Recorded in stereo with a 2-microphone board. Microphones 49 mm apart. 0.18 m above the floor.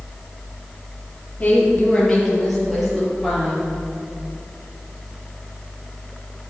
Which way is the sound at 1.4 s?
25° left (ahead or behind).